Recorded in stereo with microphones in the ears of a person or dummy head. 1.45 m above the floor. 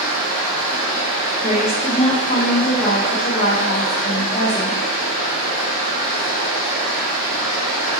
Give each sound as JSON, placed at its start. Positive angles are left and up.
{"t": 0.0, "sound": "running water", "side_deg": 40, "distance_m": 1.8}
{"t": 1.4, "sound": "a woman speaking", "side_deg": 30, "distance_m": 1.0}